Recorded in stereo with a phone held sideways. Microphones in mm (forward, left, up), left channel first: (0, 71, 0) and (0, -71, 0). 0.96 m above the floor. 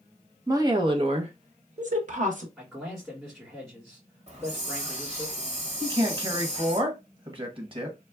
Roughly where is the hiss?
Right.